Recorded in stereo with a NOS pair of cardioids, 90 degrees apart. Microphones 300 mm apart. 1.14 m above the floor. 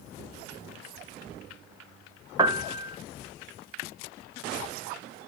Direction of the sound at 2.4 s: 15° right.